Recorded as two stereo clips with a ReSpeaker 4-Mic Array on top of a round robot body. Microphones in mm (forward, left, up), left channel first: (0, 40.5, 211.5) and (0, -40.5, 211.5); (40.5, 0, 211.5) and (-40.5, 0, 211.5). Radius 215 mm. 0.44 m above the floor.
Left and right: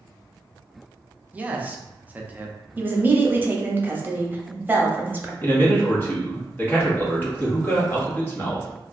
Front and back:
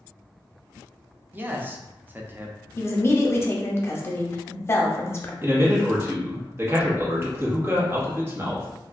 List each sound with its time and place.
1.3 s a man speaking: 140° right, 0.8 m
2.8 s a woman speaking: 40° right, 0.9 m
5.4 s a man speaking: 140° left, 1.4 m